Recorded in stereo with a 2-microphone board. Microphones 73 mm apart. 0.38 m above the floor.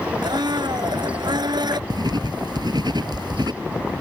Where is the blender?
80° right.